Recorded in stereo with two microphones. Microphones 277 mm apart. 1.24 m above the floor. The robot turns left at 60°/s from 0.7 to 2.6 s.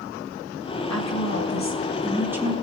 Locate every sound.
0.9 s a woman speaking: 80° left, 2 m; by 2.5 s 20° right, 2 m